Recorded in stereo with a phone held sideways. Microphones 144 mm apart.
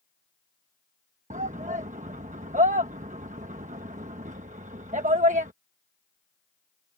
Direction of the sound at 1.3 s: 60° right (ahead or behind).